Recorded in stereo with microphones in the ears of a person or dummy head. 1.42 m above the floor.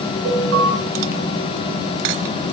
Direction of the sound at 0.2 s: 85° right.